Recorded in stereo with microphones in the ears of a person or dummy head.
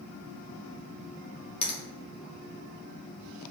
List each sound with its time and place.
1.6 s a finger snap: 40° left (ahead or behind), 0.7 m